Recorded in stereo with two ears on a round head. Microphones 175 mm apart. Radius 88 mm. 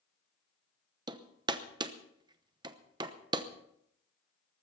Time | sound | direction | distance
1.1 | hammering | 20° right (ahead or behind) | 0.9 m